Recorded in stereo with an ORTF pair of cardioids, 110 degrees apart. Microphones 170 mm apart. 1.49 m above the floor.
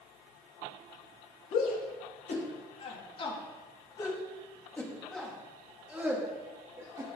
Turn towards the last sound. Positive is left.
turn(degrees=-20)